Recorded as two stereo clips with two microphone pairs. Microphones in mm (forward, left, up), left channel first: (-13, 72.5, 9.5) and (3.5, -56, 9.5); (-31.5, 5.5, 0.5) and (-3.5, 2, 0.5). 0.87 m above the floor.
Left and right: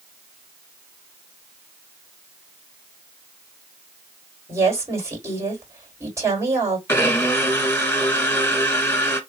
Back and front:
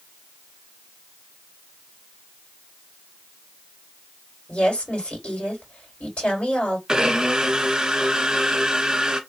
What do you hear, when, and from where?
4.5 s a woman speaking: 150° right, 3 m
6.9 s a blender: 40° left, 1.1 m